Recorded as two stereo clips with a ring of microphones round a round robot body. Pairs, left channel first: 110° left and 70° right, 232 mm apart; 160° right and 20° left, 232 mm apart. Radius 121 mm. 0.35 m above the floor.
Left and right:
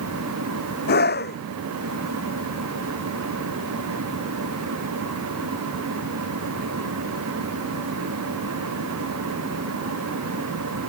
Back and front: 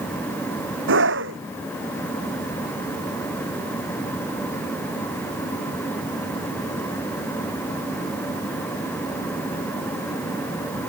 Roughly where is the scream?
Ahead left.